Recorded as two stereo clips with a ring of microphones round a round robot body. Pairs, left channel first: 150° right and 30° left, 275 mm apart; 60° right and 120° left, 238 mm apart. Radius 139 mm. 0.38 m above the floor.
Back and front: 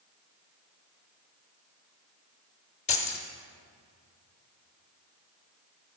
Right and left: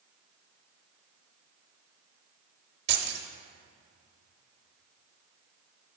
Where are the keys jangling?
150° left, 0.7 m.